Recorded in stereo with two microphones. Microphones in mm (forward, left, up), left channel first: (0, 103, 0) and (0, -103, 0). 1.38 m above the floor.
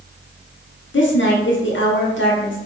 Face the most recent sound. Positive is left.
turn(degrees=70)  # may be behind; listen again after turning